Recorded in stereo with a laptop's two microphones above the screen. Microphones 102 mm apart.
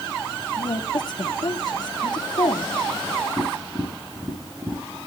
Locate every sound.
0.6 s a woman speaking: 45° left (ahead or behind), 1.7 m
3.4 s tapping: 35° right (ahead or behind), 3.5 m